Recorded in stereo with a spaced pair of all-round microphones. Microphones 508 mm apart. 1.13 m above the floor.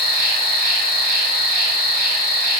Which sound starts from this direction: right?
An insect, at 0.0 s.